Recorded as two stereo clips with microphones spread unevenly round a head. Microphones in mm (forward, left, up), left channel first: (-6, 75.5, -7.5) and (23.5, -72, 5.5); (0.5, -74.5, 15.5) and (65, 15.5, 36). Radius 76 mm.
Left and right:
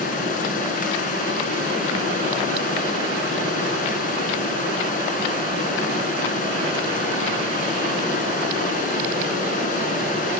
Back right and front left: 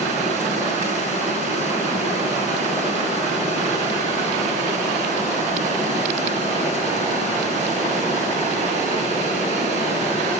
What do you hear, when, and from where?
0.0 s running water: 65° left, 3.5 m